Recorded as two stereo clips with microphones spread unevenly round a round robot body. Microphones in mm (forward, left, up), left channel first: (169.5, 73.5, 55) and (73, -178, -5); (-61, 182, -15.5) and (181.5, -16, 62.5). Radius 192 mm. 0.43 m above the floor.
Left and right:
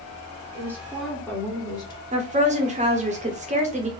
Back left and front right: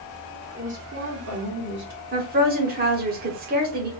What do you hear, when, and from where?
0.5 s a woman speaking: 125° right, 1.4 m; by 2.0 s 10° right, 2 m
2.1 s a woman speaking: 105° right, 0.9 m